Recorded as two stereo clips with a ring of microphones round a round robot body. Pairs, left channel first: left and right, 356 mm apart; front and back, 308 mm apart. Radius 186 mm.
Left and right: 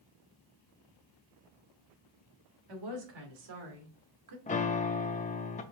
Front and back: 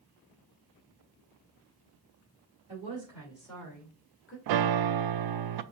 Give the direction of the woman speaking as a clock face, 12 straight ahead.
4 o'clock.